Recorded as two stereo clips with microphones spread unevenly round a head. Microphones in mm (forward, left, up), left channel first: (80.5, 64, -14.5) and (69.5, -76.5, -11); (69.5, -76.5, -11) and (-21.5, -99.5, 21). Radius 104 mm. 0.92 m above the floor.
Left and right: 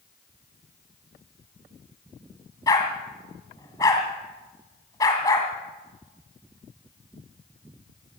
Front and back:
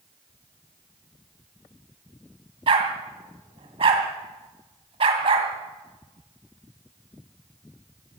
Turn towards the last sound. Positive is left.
turn(degrees=160)